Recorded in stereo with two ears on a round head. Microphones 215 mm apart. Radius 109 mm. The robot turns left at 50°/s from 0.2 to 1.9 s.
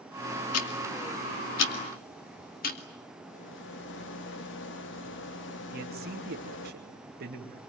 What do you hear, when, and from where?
0.5 s ticking: 70° left (ahead or behind), 2.5 m; by 2.8 s 40° left (ahead or behind), 2.5 m
3.2 s a rattle: 50° left (ahead or behind), 1.4 m
5.7 s a man speaking: 40° right (ahead or behind), 2.5 m